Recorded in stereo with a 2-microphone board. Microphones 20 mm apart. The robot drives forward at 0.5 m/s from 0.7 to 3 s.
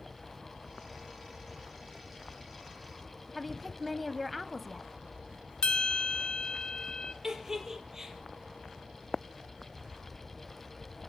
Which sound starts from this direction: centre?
A woman speaking, at 3.4 s.